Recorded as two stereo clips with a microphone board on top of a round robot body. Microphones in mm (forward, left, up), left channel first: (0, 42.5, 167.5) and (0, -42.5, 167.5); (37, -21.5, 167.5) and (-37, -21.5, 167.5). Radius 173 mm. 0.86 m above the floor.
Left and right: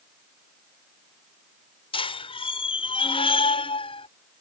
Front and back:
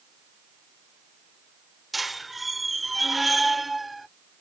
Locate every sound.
1.9 s a squeak: 90° left